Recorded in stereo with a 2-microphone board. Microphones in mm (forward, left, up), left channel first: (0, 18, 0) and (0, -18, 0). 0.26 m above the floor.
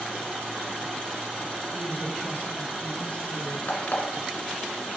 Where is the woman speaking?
55° left (ahead or behind), 4 m; by 3.6 s 50° left (ahead or behind), 3 m.